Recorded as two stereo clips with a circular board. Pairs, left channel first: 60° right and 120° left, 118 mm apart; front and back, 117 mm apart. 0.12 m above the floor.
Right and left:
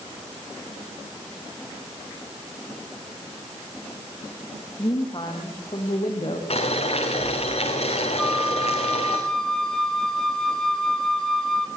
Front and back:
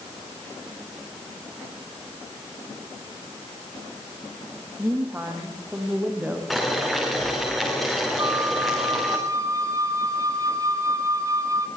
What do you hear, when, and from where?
4.8 s a woman speaking: 110° right, 5.5 m; by 6.4 s 100° right, 6 m
6.5 s boiling: 90° right, 6.5 m
8.2 s a flute: 145° right, 1.3 m